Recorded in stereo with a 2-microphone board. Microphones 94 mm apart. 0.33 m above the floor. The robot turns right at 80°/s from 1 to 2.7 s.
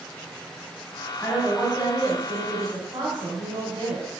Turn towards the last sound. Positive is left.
turn(degrees=-70)